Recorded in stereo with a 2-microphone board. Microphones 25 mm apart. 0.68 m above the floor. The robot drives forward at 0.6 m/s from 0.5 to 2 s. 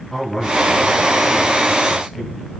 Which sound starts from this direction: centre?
A man speaking, at 0.1 s.